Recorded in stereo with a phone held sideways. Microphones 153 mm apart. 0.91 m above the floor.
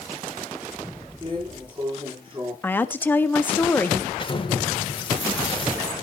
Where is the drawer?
30° right (ahead or behind), 8 m.